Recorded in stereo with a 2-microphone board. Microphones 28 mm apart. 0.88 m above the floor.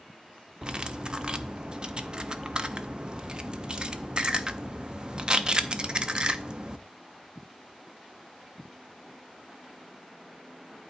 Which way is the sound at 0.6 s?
40° right (ahead or behind).